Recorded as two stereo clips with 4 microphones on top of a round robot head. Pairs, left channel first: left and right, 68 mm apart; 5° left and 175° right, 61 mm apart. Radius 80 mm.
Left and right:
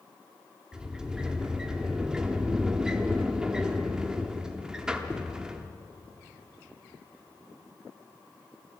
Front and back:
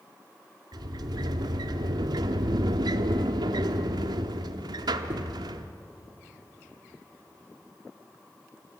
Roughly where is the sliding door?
Behind.